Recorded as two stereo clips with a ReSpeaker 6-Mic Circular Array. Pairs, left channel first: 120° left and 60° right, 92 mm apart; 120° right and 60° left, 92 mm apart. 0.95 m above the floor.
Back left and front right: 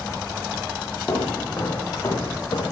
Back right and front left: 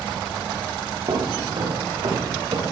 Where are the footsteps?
55° left, 5.5 m; by 2.6 s 75° left, 6.5 m.